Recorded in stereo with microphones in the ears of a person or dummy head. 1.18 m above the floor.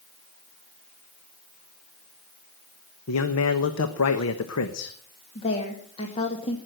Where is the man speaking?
80° left, 1.1 m.